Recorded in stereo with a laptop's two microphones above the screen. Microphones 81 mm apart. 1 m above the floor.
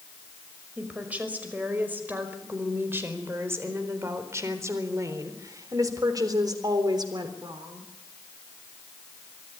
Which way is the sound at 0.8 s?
20° right (ahead or behind).